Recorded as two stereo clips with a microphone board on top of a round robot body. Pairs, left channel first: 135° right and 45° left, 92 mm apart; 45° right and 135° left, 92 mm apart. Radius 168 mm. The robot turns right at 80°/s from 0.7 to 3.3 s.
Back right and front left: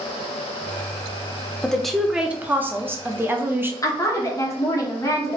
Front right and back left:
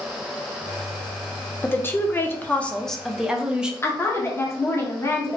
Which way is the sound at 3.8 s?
95° right.